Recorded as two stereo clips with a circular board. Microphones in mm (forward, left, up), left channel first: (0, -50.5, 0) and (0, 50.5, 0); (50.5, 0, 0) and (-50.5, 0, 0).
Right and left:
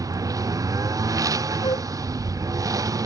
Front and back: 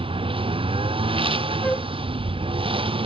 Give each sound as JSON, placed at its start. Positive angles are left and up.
{"t": 0.0, "sound": "a lawn mower", "azimuth_deg": 145}
{"t": 1.6, "sound": "a flute", "azimuth_deg": -75}